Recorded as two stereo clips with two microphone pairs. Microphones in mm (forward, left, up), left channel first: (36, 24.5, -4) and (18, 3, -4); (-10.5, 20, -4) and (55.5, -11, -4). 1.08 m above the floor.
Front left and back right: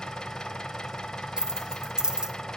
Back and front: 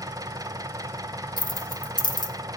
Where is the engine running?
5° right, 0.8 m.